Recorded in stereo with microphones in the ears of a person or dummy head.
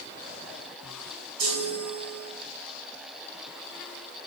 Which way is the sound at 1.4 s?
80° right.